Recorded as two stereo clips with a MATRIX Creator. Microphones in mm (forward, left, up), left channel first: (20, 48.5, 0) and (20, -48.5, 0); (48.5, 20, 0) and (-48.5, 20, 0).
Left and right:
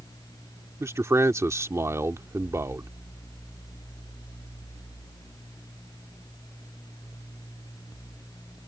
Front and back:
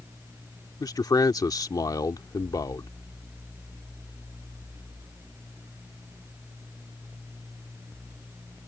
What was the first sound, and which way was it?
A man speaking, 40° right.